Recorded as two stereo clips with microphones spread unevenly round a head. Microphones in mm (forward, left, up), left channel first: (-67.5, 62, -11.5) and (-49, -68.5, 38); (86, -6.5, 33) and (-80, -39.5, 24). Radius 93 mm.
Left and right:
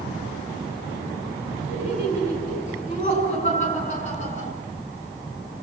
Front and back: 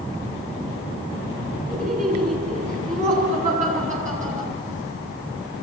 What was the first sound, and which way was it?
Laughter, 140° left.